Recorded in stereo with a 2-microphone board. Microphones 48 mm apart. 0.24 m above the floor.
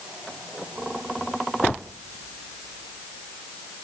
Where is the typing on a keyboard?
No typing on a keyboard in this recording.